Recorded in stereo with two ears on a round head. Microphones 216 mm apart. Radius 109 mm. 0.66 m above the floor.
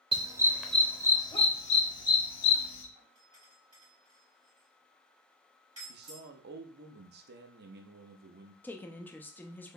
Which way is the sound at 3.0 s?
20° right (ahead or behind).